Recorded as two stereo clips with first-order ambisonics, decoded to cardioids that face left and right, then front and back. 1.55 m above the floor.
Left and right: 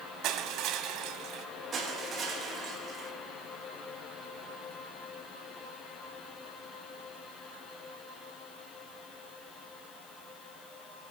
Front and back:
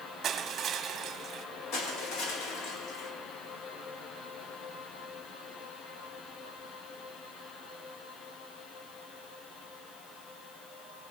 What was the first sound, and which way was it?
Crushing, 120° right.